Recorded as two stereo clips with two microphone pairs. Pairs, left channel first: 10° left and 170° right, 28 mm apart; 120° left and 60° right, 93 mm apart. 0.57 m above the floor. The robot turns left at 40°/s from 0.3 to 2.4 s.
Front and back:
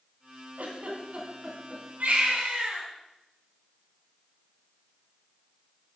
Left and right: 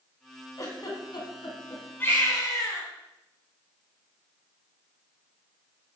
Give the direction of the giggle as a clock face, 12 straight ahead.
6 o'clock.